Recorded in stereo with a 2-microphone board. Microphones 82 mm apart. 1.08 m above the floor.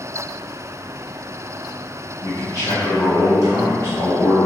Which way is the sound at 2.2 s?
35° left (ahead or behind).